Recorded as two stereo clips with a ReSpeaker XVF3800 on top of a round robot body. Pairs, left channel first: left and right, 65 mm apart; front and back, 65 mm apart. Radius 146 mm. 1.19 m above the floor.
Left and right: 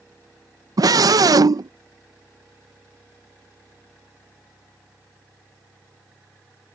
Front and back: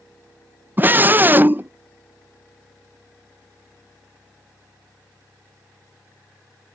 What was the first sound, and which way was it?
A scream, 120° right.